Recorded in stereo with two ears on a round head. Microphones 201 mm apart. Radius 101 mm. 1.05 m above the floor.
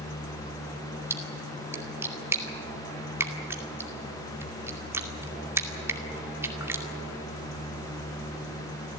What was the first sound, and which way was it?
A splash, 10° right (ahead or behind).